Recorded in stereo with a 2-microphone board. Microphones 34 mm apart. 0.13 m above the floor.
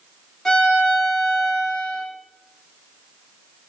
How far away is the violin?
About 3 m.